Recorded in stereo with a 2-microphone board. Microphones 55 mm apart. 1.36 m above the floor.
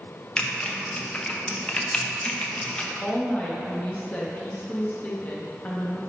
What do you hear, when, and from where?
0.4 s typing on a keyboard: 20° left (ahead or behind), 0.7 m
3.0 s a woman speaking: 30° left (ahead or behind), 1.3 m